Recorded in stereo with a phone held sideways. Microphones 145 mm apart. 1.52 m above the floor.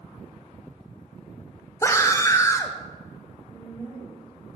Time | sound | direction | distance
1.8 | a scream | 20° left (ahead or behind) | 0.6 m
3.5 | a woman speaking | 40° right (ahead or behind) | 2.5 m